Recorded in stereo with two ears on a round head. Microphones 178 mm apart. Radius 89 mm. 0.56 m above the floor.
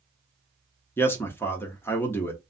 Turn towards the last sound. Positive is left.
turn(degrees=10)  # may be behind; listen again after turning